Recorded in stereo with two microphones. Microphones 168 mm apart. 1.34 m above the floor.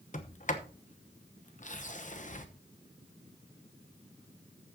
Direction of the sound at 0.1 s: 45° left (ahead or behind).